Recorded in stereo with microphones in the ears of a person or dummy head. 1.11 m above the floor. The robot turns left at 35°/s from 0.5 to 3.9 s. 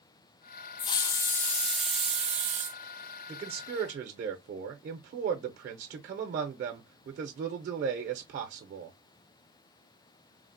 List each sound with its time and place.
0.8 s a hiss: 30° left, 0.5 m; by 2.8 s 40° right, 0.5 m
3.3 s a man speaking: 30° right (ahead or behind), 0.5 m; by 9.0 s 50° right (ahead or behind), 0.5 m